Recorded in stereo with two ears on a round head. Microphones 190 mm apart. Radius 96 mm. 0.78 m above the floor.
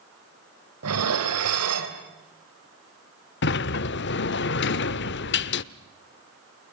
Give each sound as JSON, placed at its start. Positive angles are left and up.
{"t": 0.8, "sound": "dishes clattering", "side_deg": -85, "distance_m": 3.0}
{"t": 3.4, "sound": "a sliding door", "side_deg": 50, "distance_m": 0.7}